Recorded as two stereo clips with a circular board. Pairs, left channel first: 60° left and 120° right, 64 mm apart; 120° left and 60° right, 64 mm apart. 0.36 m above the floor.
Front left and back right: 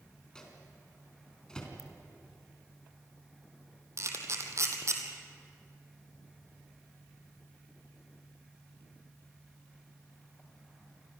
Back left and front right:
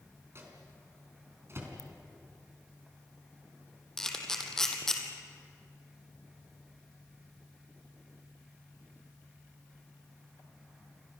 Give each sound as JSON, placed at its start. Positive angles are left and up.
{"t": 0.3, "sound": "a microwave", "azimuth_deg": -15, "distance_m": 4.0}
{"t": 1.8, "sound": "a ringtone", "azimuth_deg": -90, "distance_m": 2.0}
{"t": 4.0, "sound": "a camera shutter", "azimuth_deg": -160, "distance_m": 2.5}